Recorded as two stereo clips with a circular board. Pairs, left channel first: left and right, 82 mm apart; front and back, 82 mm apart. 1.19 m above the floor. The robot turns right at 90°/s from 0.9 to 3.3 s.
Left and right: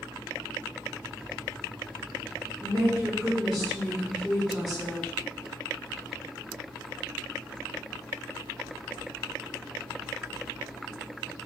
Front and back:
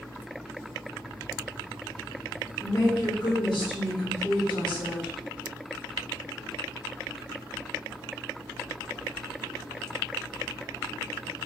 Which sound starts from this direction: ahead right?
A woman speaking, at 2.6 s.